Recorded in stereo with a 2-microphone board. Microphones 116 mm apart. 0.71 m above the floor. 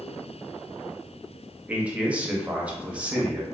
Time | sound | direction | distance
1.7 | a man speaking | 10° right (ahead or behind) | 0.6 m